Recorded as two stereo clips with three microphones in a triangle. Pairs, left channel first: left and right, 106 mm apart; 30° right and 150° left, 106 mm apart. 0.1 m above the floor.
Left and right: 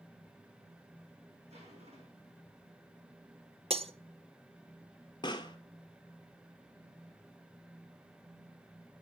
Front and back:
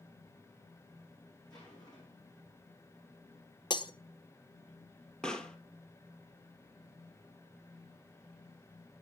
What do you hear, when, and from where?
1.5 s a zipper: 80° right, 6 m
3.7 s breaking glass: 75° right, 0.6 m
5.2 s a pop: 50° left, 1.0 m